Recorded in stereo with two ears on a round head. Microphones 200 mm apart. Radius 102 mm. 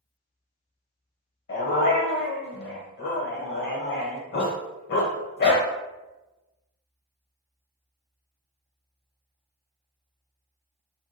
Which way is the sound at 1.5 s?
50° left (ahead or behind).